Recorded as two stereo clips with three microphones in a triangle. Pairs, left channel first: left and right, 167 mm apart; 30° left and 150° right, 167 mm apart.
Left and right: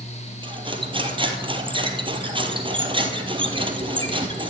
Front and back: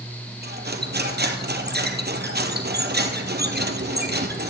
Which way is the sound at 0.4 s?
150° right.